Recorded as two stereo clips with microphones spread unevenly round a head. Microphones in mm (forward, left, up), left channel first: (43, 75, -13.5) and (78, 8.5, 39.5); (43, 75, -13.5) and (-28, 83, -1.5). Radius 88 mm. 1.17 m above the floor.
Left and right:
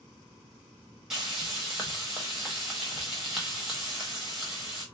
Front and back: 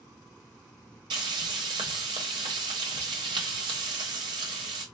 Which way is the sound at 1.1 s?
145° right.